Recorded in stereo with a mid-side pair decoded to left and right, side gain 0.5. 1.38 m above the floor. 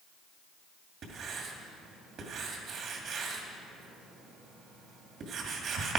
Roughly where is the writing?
Ahead right.